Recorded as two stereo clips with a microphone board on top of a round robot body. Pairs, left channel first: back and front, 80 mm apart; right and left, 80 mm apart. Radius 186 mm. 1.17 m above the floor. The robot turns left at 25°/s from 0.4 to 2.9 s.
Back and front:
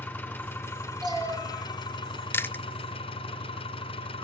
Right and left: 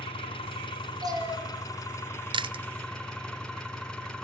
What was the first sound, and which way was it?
An engine running, 105° right.